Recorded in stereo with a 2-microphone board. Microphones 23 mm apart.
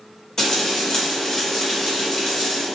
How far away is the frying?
About 1.1 m.